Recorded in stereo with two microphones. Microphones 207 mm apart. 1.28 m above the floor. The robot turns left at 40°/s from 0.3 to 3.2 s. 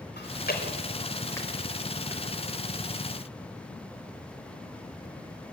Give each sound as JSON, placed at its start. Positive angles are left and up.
{"t": 0.2, "sound": "chewing", "side_deg": 55, "distance_m": 4.0}